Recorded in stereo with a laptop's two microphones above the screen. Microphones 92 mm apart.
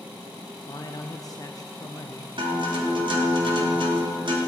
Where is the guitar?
65° right (ahead or behind), 2.5 m.